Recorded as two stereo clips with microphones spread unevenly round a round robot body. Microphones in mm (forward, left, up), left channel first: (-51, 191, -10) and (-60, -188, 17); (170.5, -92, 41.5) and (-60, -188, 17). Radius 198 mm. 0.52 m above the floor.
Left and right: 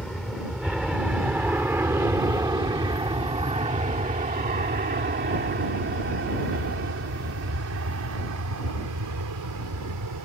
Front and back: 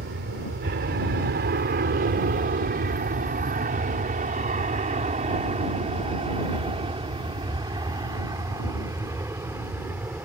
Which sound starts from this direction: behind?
An aircraft, at 0.0 s.